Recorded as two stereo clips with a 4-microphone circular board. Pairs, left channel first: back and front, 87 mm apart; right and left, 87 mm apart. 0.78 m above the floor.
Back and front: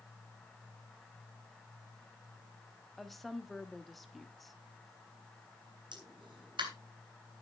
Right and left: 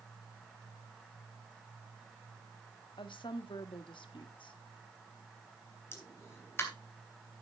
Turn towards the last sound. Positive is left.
turn(degrees=-30)